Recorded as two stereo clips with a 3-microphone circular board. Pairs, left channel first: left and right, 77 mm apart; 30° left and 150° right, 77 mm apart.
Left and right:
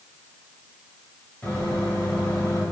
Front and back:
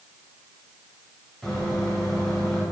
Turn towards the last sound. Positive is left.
turn(degrees=120)